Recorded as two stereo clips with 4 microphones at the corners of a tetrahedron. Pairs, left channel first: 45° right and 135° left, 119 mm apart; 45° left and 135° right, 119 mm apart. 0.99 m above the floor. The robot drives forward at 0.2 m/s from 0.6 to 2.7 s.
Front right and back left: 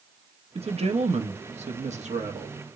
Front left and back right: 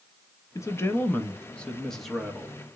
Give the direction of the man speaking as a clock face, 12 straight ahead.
8 o'clock.